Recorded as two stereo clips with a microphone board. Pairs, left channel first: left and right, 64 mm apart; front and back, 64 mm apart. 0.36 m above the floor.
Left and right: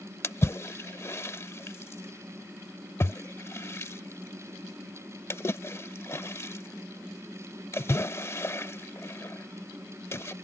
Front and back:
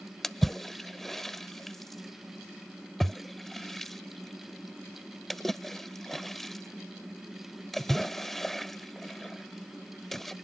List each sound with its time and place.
0.2 s a splash: 85° left